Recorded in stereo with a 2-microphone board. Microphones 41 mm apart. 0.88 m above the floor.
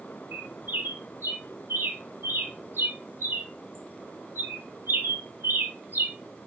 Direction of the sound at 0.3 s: 75° right (ahead or behind).